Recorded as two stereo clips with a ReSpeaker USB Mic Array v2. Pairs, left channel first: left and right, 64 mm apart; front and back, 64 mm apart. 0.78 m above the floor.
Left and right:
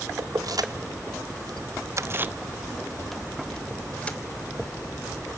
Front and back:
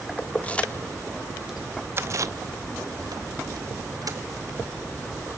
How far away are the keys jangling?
About 1.2 m.